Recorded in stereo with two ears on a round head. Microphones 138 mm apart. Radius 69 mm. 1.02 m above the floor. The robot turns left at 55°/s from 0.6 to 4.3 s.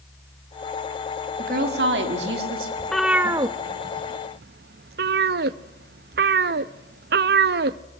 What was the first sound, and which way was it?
A woman speaking, 55° right.